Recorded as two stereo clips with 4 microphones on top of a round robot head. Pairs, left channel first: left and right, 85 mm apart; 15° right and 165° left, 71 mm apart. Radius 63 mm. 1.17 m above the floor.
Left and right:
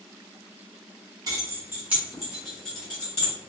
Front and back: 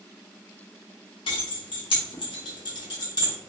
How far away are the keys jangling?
About 0.8 m.